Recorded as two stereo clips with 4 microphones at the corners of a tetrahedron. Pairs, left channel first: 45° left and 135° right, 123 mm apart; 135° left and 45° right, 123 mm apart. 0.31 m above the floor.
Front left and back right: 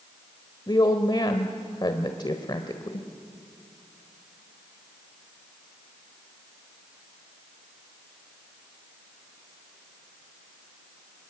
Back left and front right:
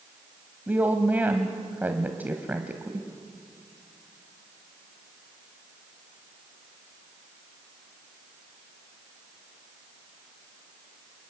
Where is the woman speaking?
20° left, 1.4 m.